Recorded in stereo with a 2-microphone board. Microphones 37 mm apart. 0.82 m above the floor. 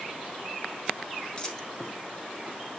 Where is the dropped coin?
20° left (ahead or behind), 0.5 m.